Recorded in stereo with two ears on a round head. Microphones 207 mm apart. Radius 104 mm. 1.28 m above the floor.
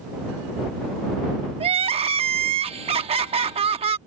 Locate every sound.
1.6 s crying: 25° right (ahead or behind)